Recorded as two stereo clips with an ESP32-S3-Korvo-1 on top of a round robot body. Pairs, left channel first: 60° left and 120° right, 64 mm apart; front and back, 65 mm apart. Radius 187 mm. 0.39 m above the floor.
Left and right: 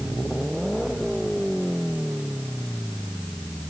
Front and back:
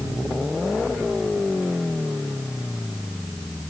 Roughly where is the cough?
No cough in this recording.